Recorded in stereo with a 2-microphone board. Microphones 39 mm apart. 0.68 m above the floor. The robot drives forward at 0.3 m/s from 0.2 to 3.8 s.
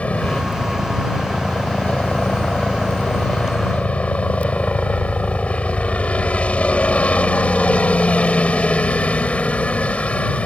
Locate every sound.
0.0 s a helicopter: 35° left (ahead or behind)